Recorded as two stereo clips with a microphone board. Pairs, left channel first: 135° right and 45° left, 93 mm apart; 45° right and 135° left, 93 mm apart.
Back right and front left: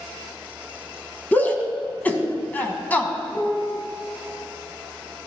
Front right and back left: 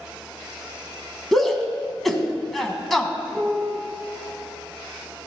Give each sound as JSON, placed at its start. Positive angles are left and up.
{"t": 1.3, "sound": "a shout", "azimuth_deg": -130, "distance_m": 1.1}
{"t": 3.3, "sound": "a piano", "azimuth_deg": -135, "distance_m": 1.9}